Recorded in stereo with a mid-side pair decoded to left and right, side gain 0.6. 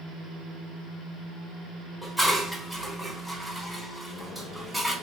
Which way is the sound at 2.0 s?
Straight ahead.